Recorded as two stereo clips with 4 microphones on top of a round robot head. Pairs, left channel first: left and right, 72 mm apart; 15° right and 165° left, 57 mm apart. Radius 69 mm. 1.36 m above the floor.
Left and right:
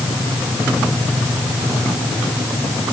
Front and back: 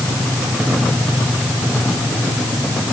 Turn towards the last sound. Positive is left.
No sound to turn to.